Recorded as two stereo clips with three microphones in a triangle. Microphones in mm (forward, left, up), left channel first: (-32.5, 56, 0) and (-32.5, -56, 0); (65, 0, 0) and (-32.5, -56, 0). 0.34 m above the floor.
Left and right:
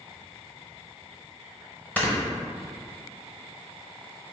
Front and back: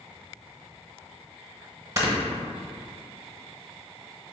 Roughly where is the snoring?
Behind.